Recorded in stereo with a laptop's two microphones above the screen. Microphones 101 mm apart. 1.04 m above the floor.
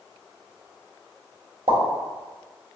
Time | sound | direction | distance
1.7 | a pop | 80° right | 1.2 m